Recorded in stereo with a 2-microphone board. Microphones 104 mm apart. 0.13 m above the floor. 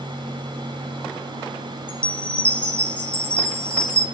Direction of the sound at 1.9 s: 10° left (ahead or behind).